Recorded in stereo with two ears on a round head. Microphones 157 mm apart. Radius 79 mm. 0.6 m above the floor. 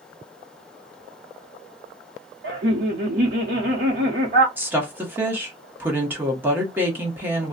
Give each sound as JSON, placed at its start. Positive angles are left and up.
{"t": 2.4, "sound": "laughter", "side_deg": -55, "distance_m": 1.0}
{"t": 4.6, "sound": "a woman speaking", "side_deg": -10, "distance_m": 1.1}